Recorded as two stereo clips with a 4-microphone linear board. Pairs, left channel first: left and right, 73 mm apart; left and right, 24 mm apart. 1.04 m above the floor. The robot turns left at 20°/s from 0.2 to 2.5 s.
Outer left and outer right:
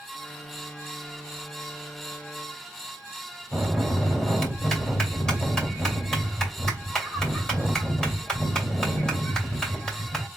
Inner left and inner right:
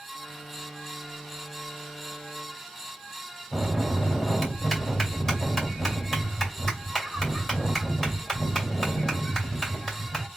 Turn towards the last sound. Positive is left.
turn(degrees=10)  # may be behind; listen again after turning